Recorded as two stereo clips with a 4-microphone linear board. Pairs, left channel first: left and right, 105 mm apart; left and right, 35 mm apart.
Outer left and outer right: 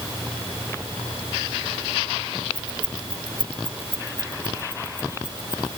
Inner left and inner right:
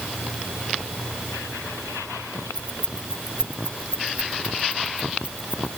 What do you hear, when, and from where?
2.5 s keys jangling: 55° right (ahead or behind); by 5.7 s 45° right (ahead or behind)